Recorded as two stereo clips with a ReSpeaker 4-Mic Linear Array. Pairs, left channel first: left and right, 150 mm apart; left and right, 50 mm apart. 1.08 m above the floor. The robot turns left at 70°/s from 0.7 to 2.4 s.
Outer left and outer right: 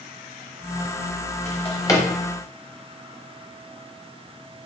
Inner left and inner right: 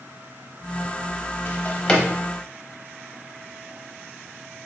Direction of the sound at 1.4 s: 50° left (ahead or behind).